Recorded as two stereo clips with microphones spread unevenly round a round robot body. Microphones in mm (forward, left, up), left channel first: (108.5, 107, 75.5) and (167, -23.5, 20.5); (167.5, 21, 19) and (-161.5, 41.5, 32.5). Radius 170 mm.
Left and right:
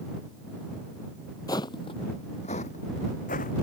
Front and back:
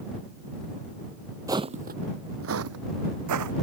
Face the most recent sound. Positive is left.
turn(degrees=145)